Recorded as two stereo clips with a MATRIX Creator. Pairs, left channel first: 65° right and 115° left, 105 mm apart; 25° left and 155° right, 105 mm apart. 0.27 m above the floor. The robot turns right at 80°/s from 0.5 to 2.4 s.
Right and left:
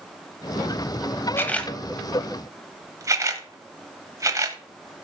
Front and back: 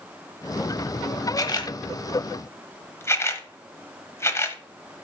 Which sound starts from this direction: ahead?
A camera shutter, at 1.4 s.